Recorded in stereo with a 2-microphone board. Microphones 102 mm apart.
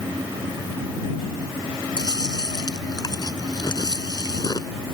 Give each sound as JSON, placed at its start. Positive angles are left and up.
{"t": 2.0, "sound": "chewing", "side_deg": 45}